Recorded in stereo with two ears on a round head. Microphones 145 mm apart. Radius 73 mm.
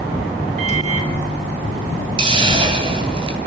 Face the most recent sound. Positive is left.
turn(degrees=-30)  # may be behind; listen again after turning